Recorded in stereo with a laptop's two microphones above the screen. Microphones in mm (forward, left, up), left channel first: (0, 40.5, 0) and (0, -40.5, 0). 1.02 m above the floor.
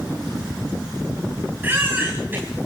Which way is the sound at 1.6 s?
25° right (ahead or behind).